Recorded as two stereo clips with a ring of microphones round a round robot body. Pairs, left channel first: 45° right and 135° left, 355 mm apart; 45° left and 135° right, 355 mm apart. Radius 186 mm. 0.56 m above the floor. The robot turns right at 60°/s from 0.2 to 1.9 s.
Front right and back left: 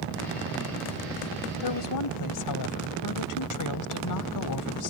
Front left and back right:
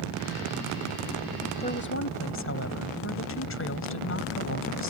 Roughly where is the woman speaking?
Ahead right.